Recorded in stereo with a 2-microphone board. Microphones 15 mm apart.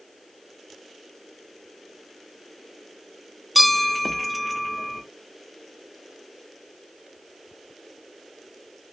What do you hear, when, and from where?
3.5 s a bell: 10° right (ahead or behind), 0.8 m